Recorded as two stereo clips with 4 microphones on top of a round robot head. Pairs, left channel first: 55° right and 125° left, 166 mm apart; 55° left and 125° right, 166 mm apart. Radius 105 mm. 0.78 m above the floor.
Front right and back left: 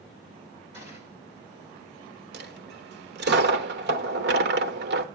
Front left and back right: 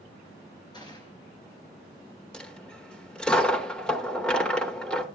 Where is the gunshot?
120° left, 4.5 m.